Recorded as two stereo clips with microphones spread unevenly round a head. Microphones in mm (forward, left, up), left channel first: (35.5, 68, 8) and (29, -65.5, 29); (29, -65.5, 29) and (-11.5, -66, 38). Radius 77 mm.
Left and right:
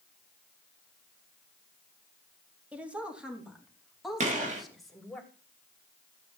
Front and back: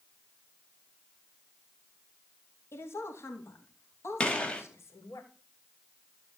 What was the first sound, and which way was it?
A woman speaking, 10° right.